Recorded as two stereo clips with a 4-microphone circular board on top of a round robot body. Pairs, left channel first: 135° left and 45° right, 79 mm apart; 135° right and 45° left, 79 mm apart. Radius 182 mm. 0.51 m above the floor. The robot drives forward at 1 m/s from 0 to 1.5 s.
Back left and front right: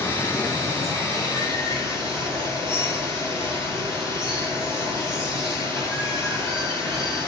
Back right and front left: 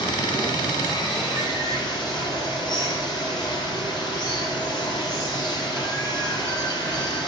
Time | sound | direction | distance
0.0 | running water | 160° right | 1.9 m